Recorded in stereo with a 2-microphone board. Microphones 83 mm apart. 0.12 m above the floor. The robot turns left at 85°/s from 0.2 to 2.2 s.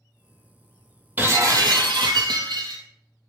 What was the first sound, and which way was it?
Breaking glass, 25° right.